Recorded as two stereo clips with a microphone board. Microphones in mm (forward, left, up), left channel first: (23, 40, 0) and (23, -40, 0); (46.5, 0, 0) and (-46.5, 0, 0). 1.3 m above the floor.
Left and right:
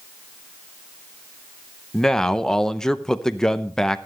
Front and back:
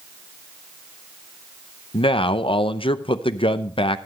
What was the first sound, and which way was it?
A man speaking, 5° left.